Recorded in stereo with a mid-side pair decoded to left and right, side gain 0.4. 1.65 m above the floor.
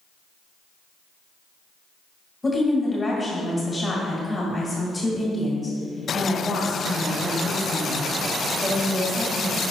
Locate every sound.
2.4 s a woman speaking: 15° left, 2 m